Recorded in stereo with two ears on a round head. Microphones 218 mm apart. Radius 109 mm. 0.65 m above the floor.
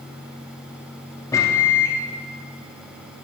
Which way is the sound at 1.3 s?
15° left (ahead or behind).